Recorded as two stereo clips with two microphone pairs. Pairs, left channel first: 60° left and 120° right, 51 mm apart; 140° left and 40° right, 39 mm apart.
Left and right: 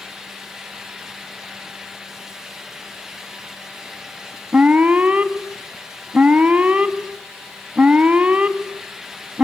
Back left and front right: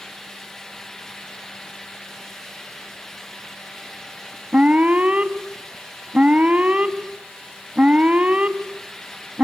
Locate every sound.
4.5 s an alarm: 75° right, 1.5 m